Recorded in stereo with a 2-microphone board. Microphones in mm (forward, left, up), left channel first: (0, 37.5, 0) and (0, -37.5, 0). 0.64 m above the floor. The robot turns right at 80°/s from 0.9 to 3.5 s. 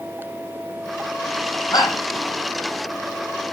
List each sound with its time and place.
1.7 s a shout: 60° left (ahead or behind), 7 m; by 2.0 s 45° left (ahead or behind), 7 m